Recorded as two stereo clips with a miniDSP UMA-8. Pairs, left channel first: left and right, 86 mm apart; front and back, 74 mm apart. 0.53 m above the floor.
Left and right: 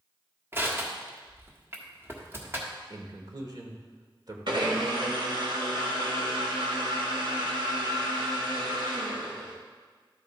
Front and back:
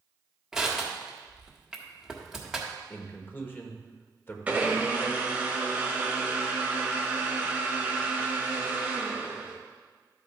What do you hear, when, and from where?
0.5 s crushing: 105° right, 1.4 m
2.9 s a man speaking: 60° right, 1.4 m
4.5 s a blender: 110° right, 1.4 m